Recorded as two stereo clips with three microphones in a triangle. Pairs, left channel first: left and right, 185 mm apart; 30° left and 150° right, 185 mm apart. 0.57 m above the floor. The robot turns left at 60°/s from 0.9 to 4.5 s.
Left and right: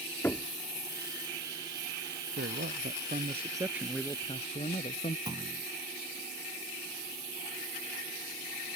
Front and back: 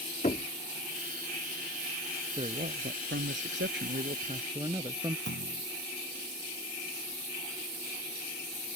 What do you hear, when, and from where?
0.2 s knocking: 15° left
2.4 s a man speaking: 90° right; by 5.2 s 140° left
5.3 s a clunk: 160° right